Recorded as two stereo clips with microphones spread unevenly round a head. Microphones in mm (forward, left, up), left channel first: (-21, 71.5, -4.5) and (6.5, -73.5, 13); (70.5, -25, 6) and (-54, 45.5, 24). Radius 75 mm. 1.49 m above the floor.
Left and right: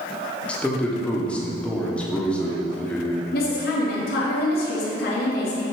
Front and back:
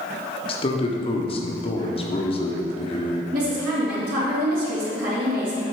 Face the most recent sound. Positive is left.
turn(degrees=120)